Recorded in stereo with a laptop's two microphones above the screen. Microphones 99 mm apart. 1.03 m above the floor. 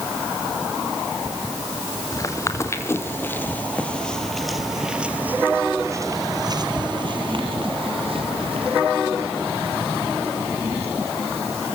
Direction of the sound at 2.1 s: 35° left (ahead or behind).